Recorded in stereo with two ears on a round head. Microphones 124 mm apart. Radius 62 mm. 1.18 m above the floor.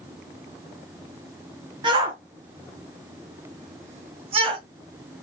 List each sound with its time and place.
1.8 s a shout: 35° right (ahead or behind), 1.8 m